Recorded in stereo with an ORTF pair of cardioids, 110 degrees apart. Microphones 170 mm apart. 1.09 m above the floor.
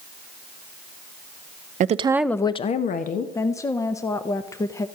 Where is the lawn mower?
I don't hear a lawn mower.